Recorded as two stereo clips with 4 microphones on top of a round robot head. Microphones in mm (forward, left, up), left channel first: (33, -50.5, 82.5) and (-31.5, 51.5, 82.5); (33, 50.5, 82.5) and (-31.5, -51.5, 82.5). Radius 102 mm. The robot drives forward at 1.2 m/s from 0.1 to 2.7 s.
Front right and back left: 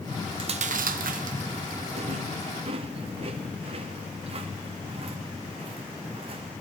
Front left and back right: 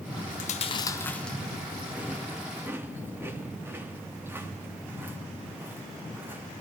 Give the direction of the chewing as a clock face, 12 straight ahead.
10 o'clock.